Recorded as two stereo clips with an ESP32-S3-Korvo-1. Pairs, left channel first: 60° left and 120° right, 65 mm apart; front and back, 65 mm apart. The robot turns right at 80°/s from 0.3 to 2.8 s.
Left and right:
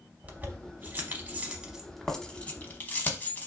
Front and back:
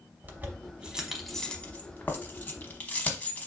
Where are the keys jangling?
160° right, 0.7 m; by 3.5 s 40° left, 0.7 m.